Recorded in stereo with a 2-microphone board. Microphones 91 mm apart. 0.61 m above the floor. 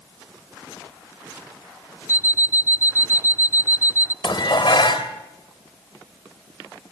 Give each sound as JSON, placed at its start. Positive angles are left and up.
{"t": 2.1, "sound": "an alarm clock", "side_deg": 35, "distance_m": 0.5}
{"t": 4.2, "sound": "dishes clattering", "side_deg": 55, "distance_m": 2.0}